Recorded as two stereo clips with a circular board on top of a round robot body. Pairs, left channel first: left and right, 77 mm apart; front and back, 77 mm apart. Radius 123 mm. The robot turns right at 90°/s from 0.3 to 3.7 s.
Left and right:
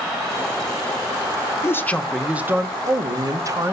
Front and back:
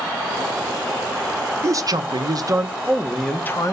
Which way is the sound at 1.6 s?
135° left.